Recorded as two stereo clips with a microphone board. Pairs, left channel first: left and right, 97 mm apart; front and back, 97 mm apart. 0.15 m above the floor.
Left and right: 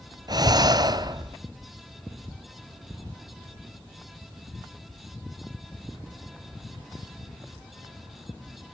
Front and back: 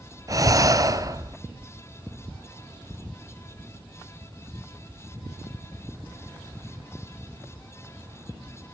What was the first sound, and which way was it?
Breathing, 130° right.